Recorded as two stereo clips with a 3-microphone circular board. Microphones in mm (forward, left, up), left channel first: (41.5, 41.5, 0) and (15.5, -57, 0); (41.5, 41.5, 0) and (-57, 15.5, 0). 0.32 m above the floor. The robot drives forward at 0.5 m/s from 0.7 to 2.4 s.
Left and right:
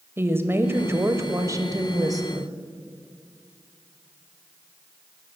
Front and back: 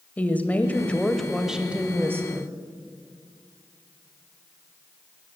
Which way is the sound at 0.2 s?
50° right.